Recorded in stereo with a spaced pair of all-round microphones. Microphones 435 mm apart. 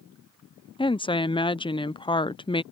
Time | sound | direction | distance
0.8 | a woman speaking | 10° left (ahead or behind) | ?